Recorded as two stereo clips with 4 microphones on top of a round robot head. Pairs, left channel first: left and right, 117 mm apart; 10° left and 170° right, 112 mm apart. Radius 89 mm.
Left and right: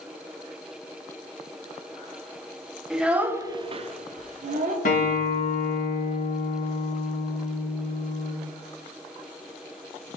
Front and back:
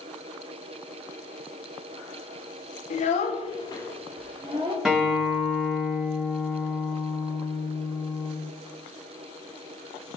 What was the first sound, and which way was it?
A child speaking, 5° right.